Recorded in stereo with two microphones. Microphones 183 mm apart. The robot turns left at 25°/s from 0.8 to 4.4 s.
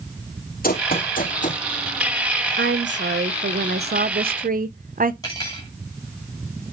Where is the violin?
No violin in this recording.